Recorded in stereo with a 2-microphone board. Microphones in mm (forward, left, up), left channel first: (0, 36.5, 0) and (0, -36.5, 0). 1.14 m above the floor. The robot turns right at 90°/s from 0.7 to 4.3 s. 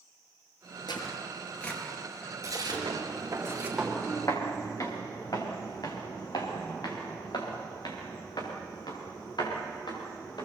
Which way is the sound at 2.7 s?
65° right (ahead or behind).